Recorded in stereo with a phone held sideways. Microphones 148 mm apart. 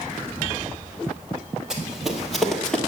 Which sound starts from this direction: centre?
Running footsteps, at 1.7 s.